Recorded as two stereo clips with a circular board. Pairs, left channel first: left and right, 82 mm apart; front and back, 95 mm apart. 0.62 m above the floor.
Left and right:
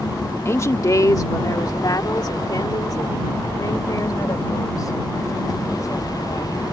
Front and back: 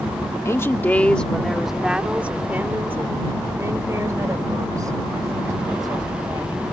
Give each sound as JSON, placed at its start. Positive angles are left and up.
{"t": 0.5, "sound": "a woman speaking", "azimuth_deg": 45}